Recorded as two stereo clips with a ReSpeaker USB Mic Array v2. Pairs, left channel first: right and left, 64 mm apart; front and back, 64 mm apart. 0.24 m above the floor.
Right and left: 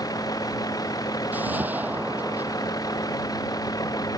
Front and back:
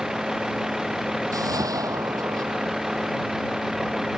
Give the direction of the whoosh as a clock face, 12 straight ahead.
7 o'clock.